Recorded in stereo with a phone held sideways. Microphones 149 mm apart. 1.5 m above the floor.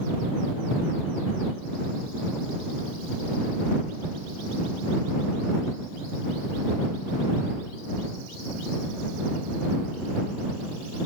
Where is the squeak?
I don't hear a squeak.